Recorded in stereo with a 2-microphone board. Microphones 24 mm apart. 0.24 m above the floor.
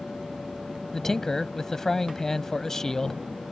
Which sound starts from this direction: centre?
A man speaking, at 0.9 s.